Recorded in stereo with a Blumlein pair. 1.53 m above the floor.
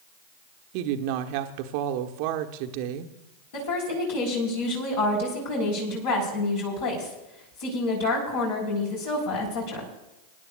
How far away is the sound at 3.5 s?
About 4 m.